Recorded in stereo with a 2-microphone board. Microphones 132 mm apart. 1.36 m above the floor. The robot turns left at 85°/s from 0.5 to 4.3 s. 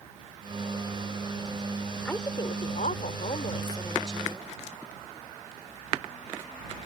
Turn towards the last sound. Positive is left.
turn(degrees=-20)